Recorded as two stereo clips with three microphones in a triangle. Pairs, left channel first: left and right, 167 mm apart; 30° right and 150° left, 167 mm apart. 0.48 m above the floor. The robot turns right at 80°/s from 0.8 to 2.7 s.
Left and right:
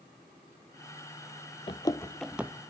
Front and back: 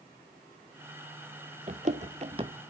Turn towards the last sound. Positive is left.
turn(degrees=-145)